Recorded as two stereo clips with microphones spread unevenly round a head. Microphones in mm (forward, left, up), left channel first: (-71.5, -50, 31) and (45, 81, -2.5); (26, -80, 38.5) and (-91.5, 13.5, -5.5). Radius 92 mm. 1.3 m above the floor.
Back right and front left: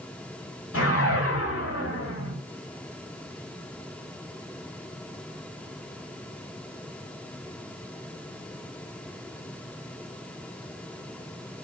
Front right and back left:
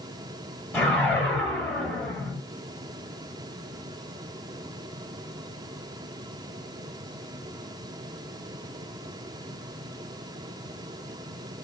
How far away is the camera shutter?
No camera shutter in this recording.